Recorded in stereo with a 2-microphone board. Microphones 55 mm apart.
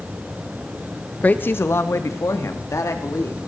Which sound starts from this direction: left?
A woman speaking, at 1.2 s.